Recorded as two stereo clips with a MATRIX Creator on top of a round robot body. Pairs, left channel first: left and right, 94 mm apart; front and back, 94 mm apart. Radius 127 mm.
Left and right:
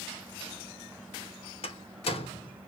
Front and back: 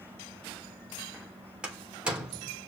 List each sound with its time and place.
1.6 s a door slam: 100° left, 3 m